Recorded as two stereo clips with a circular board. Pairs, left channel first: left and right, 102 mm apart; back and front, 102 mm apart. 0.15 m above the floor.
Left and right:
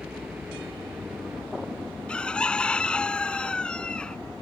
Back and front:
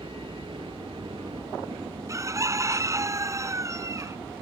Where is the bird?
20° left.